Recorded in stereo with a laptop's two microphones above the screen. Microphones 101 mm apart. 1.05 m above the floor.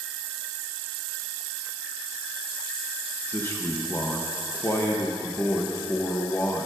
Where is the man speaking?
25° left (ahead or behind), 0.9 m.